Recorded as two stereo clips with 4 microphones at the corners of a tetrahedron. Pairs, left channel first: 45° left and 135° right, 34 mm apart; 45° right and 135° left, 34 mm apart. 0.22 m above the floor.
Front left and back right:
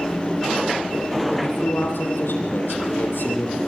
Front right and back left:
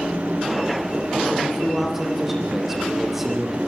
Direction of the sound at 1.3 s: 50° left.